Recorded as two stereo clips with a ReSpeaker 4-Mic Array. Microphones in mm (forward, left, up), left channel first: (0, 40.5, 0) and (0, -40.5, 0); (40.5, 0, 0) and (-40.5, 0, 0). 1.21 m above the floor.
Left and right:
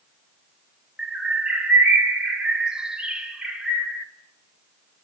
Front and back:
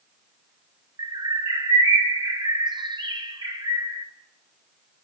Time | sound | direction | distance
1.0 | a bird | 170° right | 1.6 m